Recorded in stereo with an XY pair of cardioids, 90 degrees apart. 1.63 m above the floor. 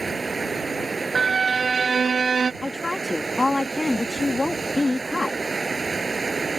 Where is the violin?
40° right.